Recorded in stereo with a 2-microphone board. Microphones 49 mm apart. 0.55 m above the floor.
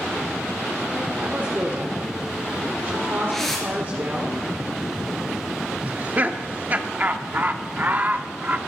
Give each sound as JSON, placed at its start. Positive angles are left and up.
{"t": 1.2, "sound": "a woman speaking", "side_deg": -50, "distance_m": 1.7}
{"t": 3.3, "sound": "a whoosh", "side_deg": 10, "distance_m": 4.5}
{"t": 5.8, "sound": "laughter", "side_deg": -35, "distance_m": 0.7}